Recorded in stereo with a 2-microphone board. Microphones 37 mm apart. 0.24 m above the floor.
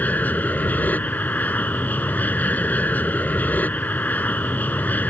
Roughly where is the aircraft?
Left.